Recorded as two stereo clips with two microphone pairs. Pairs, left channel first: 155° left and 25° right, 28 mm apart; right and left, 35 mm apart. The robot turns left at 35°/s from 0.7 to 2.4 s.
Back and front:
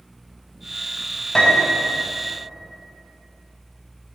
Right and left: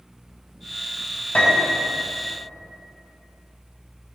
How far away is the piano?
About 2 m.